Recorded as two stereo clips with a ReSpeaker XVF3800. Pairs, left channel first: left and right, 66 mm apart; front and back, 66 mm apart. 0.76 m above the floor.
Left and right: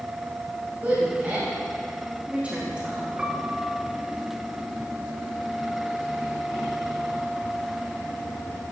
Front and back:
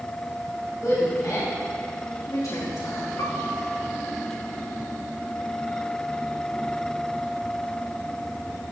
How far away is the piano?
About 0.9 m.